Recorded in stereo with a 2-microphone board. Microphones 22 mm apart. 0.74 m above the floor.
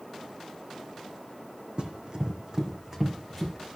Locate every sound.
1.8 s running footsteps: 50° right (ahead or behind), 1.9 m; by 3.6 s 10° right (ahead or behind), 3 m